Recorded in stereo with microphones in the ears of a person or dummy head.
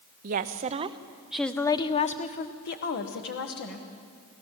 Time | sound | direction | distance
0.2 | a woman speaking | 45° right (ahead or behind) | 0.9 m